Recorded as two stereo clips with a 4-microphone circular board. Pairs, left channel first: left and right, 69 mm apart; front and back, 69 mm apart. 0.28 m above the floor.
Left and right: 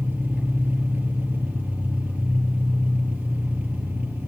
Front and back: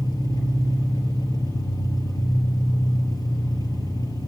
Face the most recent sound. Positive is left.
turn(degrees=-20)